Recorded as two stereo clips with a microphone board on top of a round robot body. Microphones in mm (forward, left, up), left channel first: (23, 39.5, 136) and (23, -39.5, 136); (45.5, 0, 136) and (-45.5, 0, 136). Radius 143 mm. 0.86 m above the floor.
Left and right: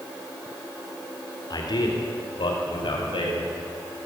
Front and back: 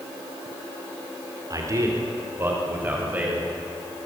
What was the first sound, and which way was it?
A man speaking, 125° left.